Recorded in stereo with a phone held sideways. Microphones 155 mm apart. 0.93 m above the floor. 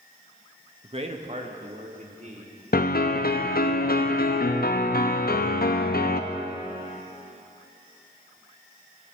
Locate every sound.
0.8 s a man speaking: 35° right (ahead or behind), 1.1 m; by 2.6 s 50° right (ahead or behind), 3.5 m
2.7 s a piano: 65° left (ahead or behind), 0.8 m